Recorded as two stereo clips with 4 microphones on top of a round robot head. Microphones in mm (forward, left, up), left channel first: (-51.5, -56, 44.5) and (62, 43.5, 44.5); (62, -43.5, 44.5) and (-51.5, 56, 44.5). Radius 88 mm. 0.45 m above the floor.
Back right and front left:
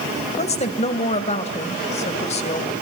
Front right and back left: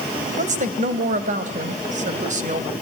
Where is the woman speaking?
175° left, 2.5 m.